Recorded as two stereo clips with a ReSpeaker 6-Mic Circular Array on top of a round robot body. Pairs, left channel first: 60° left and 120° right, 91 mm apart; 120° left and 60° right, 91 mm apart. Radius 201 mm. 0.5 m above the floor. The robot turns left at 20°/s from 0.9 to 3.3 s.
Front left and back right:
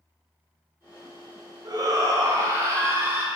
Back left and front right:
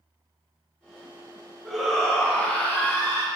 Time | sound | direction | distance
1.6 | a shout | 150° right | 1.8 m